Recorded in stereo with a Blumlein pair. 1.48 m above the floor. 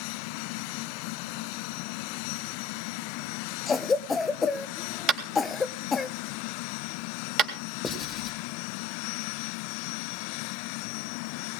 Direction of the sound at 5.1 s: 30° right.